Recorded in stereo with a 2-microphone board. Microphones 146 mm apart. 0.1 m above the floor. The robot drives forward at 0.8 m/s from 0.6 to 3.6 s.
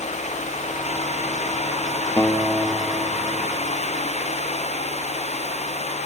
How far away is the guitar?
About 1.3 m.